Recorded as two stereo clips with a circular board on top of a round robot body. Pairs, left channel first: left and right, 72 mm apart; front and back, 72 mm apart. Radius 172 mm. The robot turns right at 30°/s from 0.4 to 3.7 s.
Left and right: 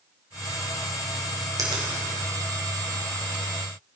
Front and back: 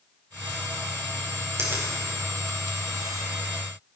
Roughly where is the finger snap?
Behind right.